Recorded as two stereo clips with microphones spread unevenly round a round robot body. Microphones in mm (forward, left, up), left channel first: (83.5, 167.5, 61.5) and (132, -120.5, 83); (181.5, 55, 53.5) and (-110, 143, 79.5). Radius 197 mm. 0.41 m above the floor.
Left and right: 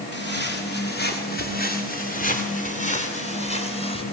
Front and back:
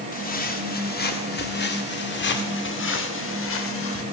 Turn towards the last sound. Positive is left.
turn(degrees=25)